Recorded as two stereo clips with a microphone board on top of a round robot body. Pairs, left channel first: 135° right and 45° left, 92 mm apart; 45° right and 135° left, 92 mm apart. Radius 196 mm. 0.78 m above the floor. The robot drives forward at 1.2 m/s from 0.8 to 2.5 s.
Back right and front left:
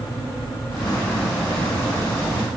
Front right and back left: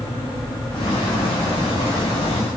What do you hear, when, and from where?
Only background noise.